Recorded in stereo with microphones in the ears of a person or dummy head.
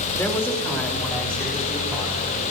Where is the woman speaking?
10° left (ahead or behind), 2.5 m; by 2.4 s centre (ahead or behind), 5.5 m.